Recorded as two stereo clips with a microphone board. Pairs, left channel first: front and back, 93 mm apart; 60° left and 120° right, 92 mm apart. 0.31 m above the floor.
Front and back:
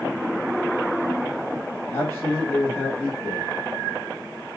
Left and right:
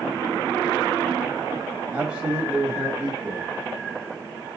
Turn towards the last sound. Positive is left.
turn(degrees=-50)